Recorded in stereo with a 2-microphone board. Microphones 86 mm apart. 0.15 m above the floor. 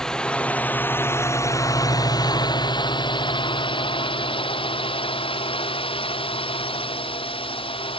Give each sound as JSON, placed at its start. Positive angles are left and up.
{"t": 0.0, "sound": "a drone", "side_deg": 5}